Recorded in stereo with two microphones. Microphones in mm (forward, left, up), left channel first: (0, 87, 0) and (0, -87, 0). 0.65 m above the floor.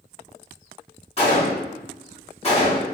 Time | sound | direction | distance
1.2 | a gunshot | 35° left (ahead or behind) | 1.6 m